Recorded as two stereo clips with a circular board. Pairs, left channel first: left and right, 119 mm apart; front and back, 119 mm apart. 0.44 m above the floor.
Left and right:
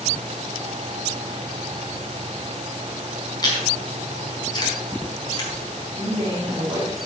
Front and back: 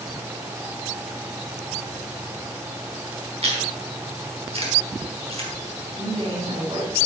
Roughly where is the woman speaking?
Behind right.